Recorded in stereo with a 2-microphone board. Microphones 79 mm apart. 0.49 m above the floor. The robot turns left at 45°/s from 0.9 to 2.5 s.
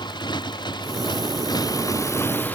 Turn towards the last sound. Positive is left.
turn(degrees=25)